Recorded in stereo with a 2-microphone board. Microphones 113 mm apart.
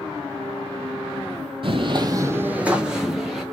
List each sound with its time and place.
1.6 s footsteps: 50° right (ahead or behind), 0.6 m; by 3.4 s centre (ahead or behind), 1.5 m